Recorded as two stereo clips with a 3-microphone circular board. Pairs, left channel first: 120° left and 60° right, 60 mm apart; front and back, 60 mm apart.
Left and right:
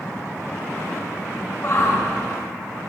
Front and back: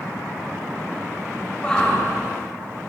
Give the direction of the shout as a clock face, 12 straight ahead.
10 o'clock.